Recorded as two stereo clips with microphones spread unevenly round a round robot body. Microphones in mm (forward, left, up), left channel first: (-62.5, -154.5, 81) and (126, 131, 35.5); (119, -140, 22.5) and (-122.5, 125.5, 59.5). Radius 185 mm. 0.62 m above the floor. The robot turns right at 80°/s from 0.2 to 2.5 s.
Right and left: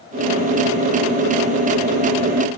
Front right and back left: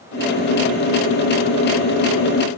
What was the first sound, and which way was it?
Only background noise.